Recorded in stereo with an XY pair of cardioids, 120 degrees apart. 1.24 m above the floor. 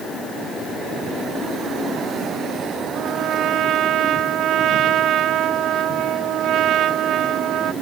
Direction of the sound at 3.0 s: 65° right.